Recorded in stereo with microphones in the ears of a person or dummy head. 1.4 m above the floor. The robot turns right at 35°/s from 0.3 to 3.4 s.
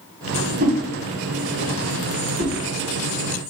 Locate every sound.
0.6 s a whoosh: 40° right (ahead or behind), 1.4 m